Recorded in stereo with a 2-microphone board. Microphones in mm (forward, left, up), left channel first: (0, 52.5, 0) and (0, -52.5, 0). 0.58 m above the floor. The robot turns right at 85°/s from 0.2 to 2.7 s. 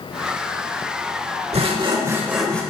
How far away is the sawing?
About 1.1 m.